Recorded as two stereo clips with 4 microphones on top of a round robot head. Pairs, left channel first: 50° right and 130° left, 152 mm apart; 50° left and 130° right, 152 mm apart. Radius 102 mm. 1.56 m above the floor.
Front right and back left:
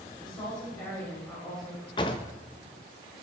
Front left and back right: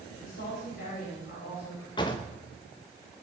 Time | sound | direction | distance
0.2 | a woman speaking | 10° left | 7.5 m
2.0 | a drawer | straight ahead | 0.9 m